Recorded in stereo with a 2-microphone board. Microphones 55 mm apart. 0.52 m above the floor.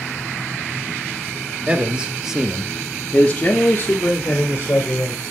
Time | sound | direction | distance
1.7 | a man speaking | 20° right (ahead or behind) | 1.2 m